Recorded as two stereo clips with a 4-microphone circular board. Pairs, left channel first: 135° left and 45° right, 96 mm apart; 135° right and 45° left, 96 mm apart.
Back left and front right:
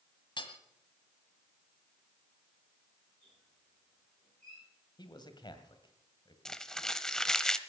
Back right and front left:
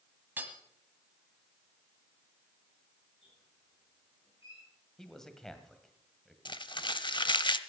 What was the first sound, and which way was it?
Hammering, 110° left.